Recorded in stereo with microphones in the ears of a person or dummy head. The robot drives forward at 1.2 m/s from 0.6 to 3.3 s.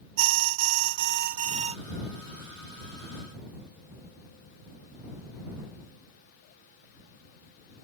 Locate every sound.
0.2 s an alarm: 75° right (ahead or behind); by 1.8 s 30° right (ahead or behind)